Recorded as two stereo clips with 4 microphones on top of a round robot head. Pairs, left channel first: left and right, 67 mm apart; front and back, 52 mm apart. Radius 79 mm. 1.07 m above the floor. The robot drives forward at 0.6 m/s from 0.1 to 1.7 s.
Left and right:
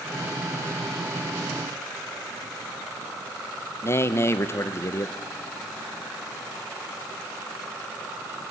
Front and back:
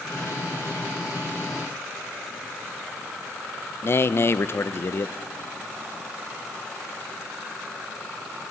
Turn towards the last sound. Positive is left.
turn(degrees=35)